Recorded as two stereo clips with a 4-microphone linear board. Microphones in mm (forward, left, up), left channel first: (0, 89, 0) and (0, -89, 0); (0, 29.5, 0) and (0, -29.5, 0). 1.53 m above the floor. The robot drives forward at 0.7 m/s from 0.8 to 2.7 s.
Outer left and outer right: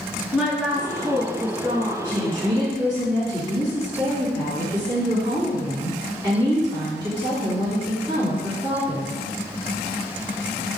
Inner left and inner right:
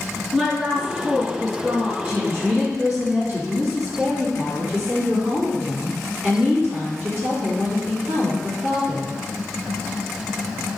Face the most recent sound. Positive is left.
turn(degrees=-15)  # may be behind; listen again after turning